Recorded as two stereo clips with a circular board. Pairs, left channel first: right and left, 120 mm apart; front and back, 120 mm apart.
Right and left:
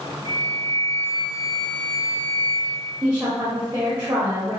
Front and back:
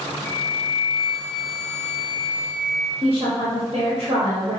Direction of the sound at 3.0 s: 160° left.